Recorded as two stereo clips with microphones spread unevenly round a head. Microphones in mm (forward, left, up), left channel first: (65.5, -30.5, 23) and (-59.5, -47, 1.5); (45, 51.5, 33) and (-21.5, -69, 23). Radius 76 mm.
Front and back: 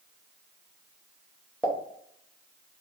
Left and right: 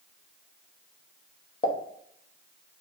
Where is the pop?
100° left, 0.7 m.